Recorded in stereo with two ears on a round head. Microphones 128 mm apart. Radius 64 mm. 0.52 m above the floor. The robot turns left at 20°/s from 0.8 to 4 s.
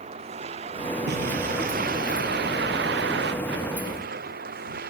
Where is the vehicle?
45° right; by 4.9 s 105° right.